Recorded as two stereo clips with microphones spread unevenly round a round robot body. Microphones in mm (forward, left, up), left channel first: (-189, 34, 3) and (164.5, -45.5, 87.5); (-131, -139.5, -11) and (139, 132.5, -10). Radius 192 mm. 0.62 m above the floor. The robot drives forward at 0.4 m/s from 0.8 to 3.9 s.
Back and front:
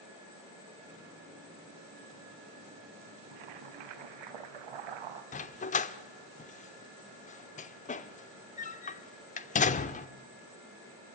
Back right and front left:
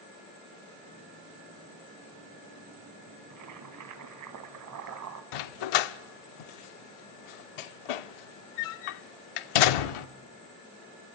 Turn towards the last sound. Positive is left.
turn(degrees=-125)